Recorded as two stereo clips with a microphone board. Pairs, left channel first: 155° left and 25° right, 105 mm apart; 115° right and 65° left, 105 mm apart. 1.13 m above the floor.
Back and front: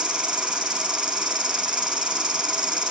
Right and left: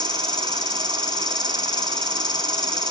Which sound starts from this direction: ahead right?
An insect, at 0.0 s.